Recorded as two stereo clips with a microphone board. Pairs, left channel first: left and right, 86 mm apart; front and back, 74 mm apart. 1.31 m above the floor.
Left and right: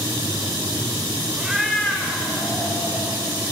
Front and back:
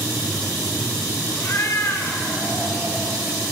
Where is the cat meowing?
20° right, 1.2 m; by 3.2 s 70° left, 2.0 m.